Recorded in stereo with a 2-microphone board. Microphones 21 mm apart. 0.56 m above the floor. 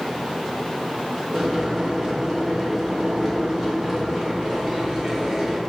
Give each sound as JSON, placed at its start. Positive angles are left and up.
{"t": 1.3, "sound": "boiling", "side_deg": -15, "distance_m": 1.8}